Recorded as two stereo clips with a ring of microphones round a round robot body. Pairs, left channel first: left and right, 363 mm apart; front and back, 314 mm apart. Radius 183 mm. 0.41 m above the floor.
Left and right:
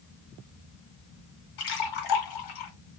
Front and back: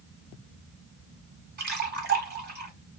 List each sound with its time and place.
1.6 s a splash: 120° left, 1.3 m